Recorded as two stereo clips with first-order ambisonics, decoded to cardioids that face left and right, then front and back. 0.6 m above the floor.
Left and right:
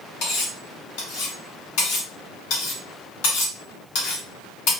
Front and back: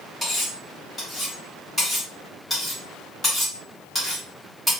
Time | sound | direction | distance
0.2 | cutlery clinking | 85° left | 1.3 m